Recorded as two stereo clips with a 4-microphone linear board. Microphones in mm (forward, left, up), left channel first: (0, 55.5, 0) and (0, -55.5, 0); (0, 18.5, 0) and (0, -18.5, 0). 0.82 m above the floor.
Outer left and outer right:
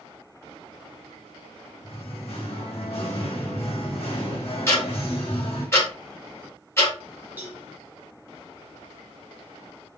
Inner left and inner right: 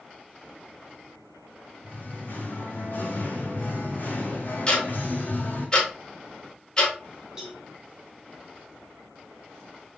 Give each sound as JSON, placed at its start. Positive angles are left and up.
{"t": 1.8, "sound": "singing", "side_deg": 65, "distance_m": 2.0}
{"t": 4.7, "sound": "ticking", "side_deg": 25, "distance_m": 2.0}
{"t": 7.4, "sound": "a cowbell", "side_deg": -20, "distance_m": 1.6}